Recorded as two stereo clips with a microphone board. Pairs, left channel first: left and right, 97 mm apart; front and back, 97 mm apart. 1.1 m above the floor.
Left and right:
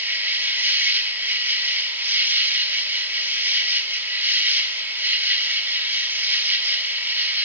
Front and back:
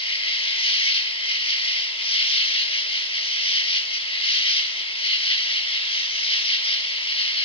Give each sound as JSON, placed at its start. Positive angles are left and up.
{"t": 0.0, "sound": "an insect", "azimuth_deg": -20, "distance_m": 1.3}